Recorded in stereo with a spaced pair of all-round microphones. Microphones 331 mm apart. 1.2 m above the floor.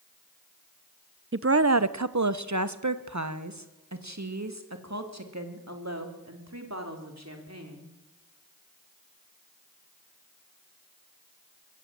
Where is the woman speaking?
40° right (ahead or behind), 0.6 m; by 7.9 s 50° right (ahead or behind), 4.5 m.